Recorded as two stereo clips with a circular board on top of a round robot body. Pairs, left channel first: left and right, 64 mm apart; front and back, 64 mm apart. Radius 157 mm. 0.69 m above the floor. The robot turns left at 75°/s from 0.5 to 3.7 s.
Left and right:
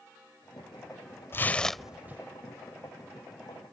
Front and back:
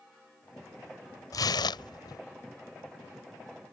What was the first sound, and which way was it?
Tearing paper, 35° left.